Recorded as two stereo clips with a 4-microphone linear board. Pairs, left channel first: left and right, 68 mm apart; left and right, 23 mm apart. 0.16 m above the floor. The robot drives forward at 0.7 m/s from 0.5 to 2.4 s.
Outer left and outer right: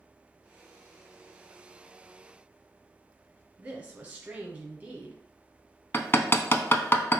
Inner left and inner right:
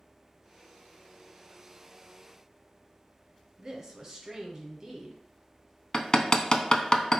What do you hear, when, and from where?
3.6 s a woman speaking: 20° right (ahead or behind), 1.1 m
5.9 s hammering: 35° left (ahead or behind), 0.6 m